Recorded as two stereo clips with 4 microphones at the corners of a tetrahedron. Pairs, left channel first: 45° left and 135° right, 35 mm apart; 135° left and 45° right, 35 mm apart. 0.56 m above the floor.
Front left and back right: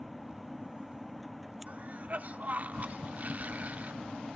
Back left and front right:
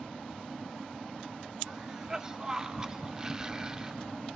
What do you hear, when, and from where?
1.7 s a cough: 110° right, 1.2 m